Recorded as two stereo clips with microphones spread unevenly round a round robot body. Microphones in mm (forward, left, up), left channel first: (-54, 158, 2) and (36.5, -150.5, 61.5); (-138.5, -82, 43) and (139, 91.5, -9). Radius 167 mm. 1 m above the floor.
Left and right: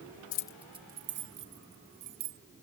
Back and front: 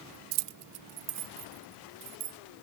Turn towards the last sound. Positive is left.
turn(degrees=-25)